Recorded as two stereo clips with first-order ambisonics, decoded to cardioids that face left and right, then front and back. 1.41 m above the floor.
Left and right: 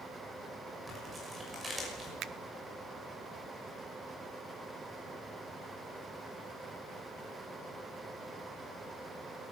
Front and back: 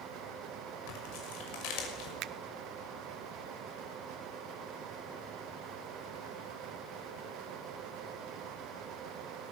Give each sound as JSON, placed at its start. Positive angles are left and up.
{"t": 0.9, "sound": "tearing paper", "azimuth_deg": -10, "distance_m": 6.0}
{"t": 2.2, "sound": "a finger snap", "azimuth_deg": -140, "distance_m": 0.6}